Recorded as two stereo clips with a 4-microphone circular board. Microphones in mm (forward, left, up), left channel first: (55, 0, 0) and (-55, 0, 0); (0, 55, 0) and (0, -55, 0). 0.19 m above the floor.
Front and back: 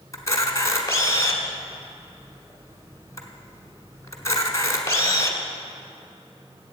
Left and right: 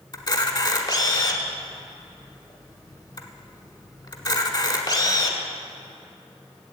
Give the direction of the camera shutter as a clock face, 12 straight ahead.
10 o'clock.